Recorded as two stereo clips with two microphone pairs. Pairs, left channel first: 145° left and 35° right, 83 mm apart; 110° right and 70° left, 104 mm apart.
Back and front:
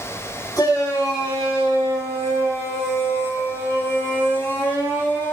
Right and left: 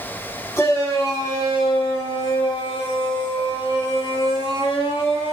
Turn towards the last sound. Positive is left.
turn(degrees=-145)